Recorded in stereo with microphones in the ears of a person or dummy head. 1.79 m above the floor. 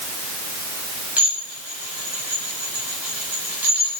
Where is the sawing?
No sawing in this recording.